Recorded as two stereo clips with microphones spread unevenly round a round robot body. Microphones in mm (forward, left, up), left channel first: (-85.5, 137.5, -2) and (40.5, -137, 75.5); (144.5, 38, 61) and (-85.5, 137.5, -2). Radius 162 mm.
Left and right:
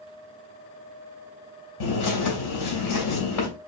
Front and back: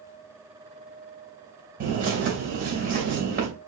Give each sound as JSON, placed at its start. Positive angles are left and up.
{"t": 1.8, "sound": "a bird", "azimuth_deg": 110, "distance_m": 2.5}